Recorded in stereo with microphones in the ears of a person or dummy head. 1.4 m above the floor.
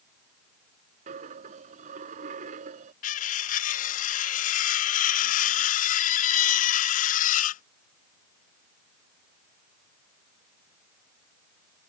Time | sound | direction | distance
1.1 | a dropped coin | 35° right (ahead or behind) | ?
3.0 | cutlery clinking | 40° left (ahead or behind) | ?